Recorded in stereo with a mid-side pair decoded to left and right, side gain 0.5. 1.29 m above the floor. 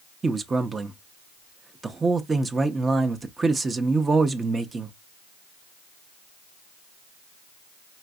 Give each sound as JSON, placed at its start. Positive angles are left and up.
{"t": 0.2, "sound": "a man speaking", "azimuth_deg": -30, "distance_m": 0.6}